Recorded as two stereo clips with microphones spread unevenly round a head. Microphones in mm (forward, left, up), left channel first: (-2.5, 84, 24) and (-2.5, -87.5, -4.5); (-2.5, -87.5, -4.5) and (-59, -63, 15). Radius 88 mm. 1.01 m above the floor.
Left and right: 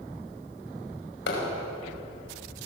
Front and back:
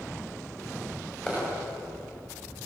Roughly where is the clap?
Ahead left.